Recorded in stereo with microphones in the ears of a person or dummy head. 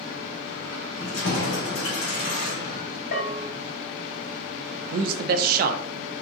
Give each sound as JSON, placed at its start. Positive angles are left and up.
{"t": 1.0, "sound": "keys jangling", "side_deg": 75, "distance_m": 2.0}
{"t": 3.1, "sound": "a bell", "side_deg": 70, "distance_m": 1.8}
{"t": 4.9, "sound": "a man speaking", "side_deg": -50, "distance_m": 0.6}